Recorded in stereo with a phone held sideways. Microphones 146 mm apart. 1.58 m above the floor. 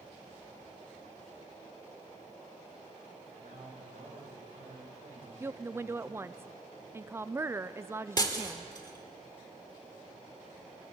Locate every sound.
3.4 s a man speaking: 85° right, 5.5 m; by 6.4 s 55° right (ahead or behind), 7 m
5.4 s a woman speaking: 20° right (ahead or behind), 0.5 m
8.2 s breaking glass: 30° left (ahead or behind), 1.9 m